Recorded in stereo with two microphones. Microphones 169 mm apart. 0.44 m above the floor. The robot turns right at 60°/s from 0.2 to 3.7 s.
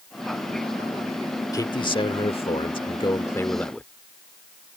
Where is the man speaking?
40° left; by 3.9 s 170° left.